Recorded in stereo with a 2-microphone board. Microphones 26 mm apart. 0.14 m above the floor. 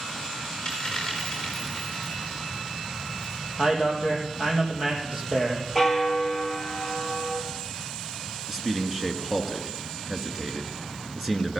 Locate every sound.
0.7 s a dropped coin: 10° left (ahead or behind), 6 m
3.6 s a man speaking: 25° right (ahead or behind), 4 m
5.8 s a bell: centre (ahead or behind), 2 m
8.5 s a man speaking: 15° right (ahead or behind), 1.7 m